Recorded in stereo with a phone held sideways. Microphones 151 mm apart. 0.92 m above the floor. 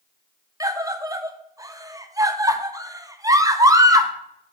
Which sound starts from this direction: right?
A scream, at 0.6 s.